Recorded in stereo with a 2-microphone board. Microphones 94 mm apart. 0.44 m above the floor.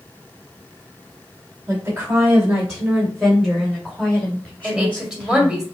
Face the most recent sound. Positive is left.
turn(degrees=-10)  # may be behind; listen again after turning